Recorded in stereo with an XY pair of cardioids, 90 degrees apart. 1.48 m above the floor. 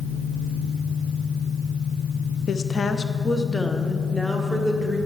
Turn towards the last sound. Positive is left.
turn(degrees=5)